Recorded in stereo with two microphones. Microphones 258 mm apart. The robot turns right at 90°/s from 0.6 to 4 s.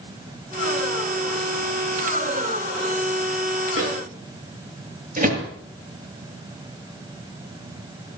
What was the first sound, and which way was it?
A microwave, 55° right (ahead or behind).